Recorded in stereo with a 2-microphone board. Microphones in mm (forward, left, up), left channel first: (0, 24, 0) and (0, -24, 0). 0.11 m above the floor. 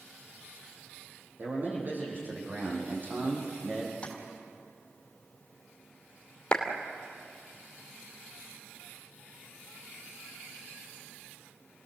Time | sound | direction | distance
1.4 | a man speaking | 45° right (ahead or behind) | 5.5 m
4.0 | tapping | 25° left (ahead or behind) | 3.5 m
6.5 | a clap | 20° left (ahead or behind) | 2.5 m